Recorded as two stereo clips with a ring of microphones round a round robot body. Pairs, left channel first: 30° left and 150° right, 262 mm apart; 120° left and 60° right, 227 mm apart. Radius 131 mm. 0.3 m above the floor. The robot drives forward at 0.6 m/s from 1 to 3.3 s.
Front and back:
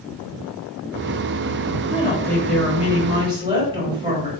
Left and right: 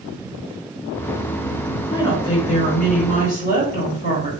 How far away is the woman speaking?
About 1.1 m.